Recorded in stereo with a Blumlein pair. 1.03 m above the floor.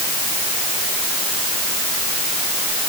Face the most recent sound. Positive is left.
No sound to turn to.